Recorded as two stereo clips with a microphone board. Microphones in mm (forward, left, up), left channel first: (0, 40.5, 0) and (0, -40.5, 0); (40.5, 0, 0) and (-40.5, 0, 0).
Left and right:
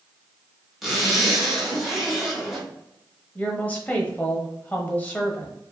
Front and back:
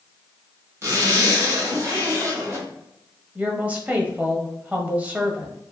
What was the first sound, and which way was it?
A zipper, 175° right.